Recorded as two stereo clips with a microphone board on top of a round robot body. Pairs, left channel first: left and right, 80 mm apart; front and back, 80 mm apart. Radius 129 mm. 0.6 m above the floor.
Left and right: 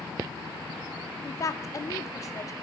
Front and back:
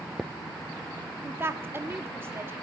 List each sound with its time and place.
1.2 s a woman speaking: 125° left, 1.7 m